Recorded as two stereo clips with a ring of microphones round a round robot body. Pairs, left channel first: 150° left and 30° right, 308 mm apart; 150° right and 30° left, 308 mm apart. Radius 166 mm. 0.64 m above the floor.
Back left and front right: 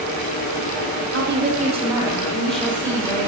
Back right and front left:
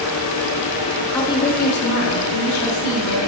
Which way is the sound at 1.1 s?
70° right.